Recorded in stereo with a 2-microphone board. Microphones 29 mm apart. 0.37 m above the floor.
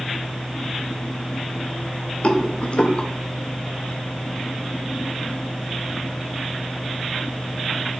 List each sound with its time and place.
2.2 s a rattle: 55° left (ahead or behind), 0.5 m